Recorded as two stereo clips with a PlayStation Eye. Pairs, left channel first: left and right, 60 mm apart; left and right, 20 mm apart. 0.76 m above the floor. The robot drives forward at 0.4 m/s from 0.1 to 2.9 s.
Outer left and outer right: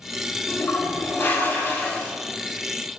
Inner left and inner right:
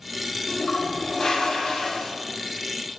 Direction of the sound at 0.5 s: 50° left (ahead or behind).